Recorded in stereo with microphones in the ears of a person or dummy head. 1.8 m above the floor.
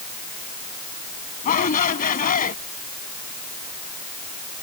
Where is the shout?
50° left (ahead or behind).